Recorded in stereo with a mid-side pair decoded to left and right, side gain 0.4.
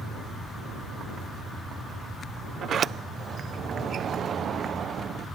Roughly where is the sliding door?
Ahead right.